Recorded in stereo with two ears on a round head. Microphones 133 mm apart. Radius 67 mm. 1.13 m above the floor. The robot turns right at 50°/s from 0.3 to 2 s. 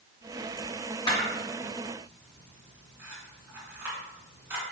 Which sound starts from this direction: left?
A camera shutter, at 1.1 s.